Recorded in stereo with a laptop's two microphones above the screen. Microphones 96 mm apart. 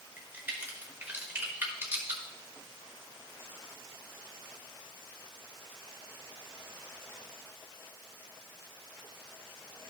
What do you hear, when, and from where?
0.2 s a crack: 25° right (ahead or behind), 1.2 m